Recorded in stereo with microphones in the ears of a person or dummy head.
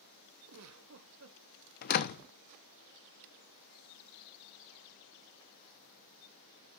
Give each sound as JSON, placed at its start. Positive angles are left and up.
{"t": 0.5, "sound": "a giggle", "side_deg": -85, "distance_m": 1.4}
{"t": 1.8, "sound": "a door slam", "side_deg": 50, "distance_m": 0.8}